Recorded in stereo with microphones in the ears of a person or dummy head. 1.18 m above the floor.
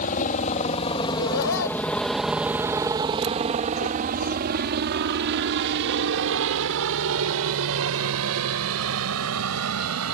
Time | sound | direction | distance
0.0 | a helicopter | 45° left (ahead or behind) | ?
1.1 | laughter | 75° left (ahead or behind) | ?